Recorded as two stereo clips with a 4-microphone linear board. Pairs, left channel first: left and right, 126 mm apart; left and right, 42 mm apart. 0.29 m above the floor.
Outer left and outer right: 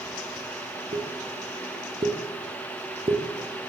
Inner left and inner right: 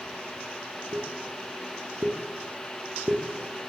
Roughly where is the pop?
Right.